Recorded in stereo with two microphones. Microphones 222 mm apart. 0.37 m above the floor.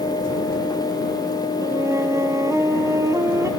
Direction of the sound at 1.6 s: 15° right (ahead or behind).